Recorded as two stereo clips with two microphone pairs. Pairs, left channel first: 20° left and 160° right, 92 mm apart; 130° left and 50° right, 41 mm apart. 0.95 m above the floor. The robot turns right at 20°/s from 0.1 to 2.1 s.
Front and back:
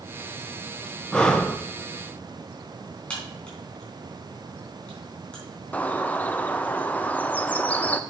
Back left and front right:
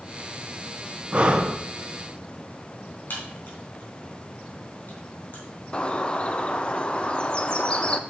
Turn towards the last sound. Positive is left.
turn(degrees=90)